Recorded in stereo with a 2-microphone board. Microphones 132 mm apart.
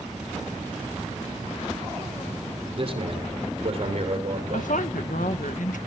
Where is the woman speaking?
75° left (ahead or behind), 1.4 m.